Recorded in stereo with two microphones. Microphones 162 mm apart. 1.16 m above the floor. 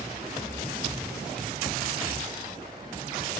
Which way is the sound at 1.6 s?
40° left (ahead or behind).